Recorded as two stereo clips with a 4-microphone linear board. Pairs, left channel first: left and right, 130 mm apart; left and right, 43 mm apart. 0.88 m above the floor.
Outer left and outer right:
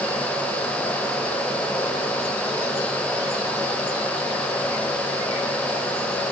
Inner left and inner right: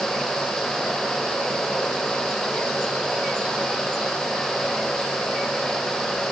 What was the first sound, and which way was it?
Only background noise.